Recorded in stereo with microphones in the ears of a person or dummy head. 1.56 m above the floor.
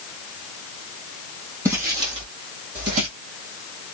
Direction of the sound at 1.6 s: 10° right (ahead or behind).